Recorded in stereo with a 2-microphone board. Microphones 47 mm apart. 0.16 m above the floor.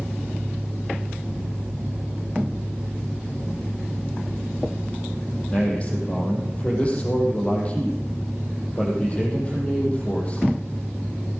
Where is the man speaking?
25° left (ahead or behind), 5.5 m.